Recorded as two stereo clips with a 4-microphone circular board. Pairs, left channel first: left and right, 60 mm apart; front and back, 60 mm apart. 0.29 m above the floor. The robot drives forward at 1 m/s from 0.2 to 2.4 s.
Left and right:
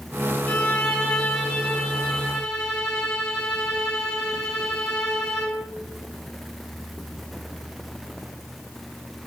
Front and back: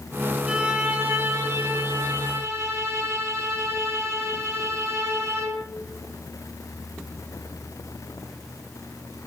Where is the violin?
130° left, 1.4 m; by 5.7 s 170° left, 2.5 m.